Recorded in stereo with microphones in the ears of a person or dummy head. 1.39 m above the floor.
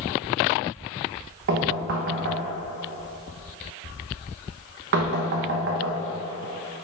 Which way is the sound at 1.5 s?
65° right (ahead or behind).